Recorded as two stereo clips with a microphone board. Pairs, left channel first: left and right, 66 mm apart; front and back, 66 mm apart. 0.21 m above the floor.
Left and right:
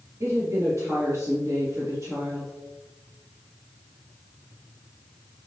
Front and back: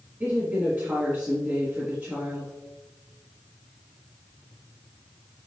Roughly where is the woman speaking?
Behind right.